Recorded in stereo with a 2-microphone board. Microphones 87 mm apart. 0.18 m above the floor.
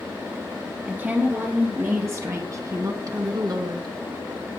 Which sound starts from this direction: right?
A woman speaking, at 0.9 s.